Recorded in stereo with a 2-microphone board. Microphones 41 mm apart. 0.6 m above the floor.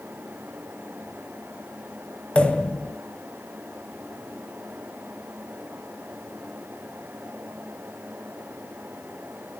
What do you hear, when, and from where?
2.4 s a pop: 25° left (ahead or behind), 1.6 m